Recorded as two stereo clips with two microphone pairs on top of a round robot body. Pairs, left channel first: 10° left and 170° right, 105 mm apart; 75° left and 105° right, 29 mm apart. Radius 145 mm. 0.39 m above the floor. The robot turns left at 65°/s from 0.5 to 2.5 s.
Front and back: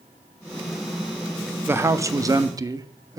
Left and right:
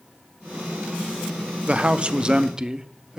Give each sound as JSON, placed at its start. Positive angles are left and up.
{"t": 1.7, "sound": "a man speaking", "azimuth_deg": -115, "distance_m": 0.8}